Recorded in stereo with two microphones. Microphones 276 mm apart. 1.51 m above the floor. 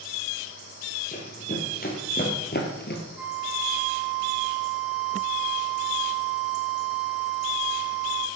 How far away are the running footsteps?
About 3 m.